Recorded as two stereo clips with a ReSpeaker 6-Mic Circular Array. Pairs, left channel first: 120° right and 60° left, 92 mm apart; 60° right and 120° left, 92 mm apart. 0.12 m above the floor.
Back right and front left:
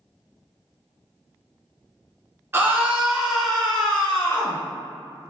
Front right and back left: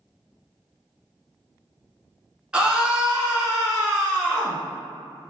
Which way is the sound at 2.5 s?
55° left.